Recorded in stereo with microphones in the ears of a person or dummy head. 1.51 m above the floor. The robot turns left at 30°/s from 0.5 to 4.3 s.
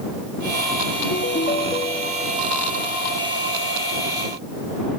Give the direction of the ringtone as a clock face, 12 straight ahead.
10 o'clock.